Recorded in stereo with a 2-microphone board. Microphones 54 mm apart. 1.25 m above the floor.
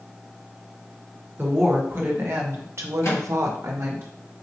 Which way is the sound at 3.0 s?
65° left (ahead or behind).